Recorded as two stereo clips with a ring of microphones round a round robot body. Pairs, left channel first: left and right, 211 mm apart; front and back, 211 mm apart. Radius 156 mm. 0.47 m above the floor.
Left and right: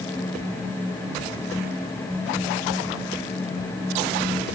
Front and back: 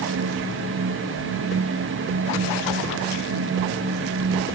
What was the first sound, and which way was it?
Only background noise.